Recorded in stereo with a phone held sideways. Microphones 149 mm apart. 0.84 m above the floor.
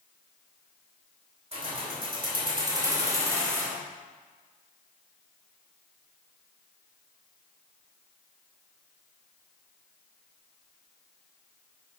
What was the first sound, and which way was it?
Keys jangling, 45° right (ahead or behind).